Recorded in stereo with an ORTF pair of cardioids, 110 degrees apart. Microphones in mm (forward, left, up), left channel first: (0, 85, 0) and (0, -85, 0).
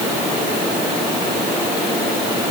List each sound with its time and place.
Only background noise.